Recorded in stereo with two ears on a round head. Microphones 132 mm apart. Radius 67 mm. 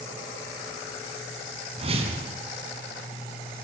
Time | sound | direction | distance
1.8 | a whoosh | 45° right (ahead or behind) | 4.5 m